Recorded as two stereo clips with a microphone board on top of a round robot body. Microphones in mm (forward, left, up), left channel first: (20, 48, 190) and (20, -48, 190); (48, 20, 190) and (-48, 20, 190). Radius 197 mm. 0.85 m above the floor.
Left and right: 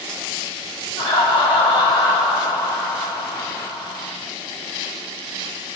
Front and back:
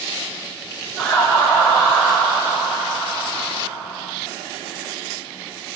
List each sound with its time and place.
1.0 s laughter: 70° left, 1.1 m